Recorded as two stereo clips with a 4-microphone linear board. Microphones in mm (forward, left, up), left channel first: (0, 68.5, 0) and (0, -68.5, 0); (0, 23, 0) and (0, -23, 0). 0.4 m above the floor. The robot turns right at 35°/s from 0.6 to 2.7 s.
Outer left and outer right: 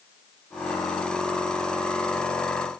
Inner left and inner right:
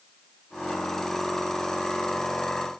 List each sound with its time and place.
Only background noise.